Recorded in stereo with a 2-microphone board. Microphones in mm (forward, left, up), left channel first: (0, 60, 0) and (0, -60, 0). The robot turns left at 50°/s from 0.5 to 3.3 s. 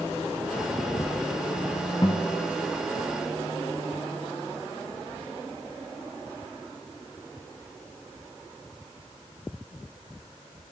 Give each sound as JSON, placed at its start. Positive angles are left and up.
{"t": 2.0, "sound": "a guitar", "side_deg": 40, "distance_m": 0.7}